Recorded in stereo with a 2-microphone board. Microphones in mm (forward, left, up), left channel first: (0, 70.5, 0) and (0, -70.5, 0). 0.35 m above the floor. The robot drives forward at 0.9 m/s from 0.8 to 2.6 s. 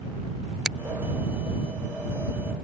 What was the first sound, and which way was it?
A finger snap, 5° right (ahead or behind).